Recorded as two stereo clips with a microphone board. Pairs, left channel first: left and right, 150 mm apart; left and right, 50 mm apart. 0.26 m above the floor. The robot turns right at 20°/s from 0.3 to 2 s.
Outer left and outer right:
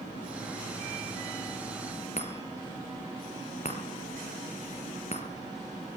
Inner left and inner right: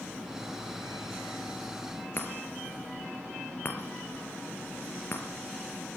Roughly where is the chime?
Left.